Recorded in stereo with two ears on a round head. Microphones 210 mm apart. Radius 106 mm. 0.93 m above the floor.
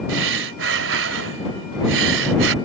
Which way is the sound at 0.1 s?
50° right (ahead or behind).